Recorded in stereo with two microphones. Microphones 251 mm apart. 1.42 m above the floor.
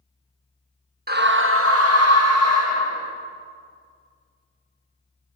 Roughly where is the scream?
Right.